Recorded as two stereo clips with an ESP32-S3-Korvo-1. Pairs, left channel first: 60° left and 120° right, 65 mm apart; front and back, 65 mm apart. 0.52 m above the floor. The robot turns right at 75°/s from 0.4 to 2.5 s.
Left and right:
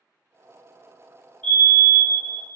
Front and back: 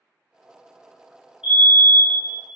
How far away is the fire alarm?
About 1.9 m.